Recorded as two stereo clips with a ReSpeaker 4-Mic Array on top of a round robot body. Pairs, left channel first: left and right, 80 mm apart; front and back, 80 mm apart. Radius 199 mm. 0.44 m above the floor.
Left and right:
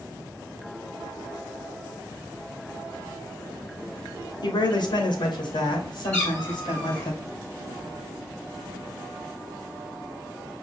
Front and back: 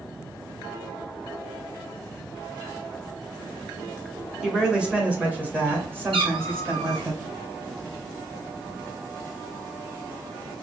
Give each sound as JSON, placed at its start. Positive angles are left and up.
{"t": 4.4, "sound": "a woman speaking", "azimuth_deg": 95, "distance_m": 1.2}
{"t": 6.1, "sound": "a cat meowing", "azimuth_deg": 160, "distance_m": 1.3}